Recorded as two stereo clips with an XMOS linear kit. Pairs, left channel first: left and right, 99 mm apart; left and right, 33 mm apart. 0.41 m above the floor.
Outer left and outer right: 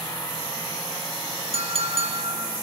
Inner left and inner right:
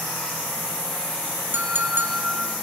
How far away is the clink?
About 3.5 m.